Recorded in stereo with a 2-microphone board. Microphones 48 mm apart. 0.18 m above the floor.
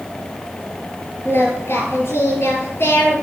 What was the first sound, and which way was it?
Singing, 55° left (ahead or behind).